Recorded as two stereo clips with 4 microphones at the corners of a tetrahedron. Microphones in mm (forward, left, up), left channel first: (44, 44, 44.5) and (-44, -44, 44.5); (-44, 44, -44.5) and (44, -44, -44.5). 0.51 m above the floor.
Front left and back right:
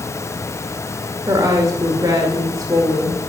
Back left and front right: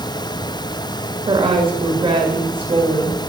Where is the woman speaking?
80° right, 1.8 m.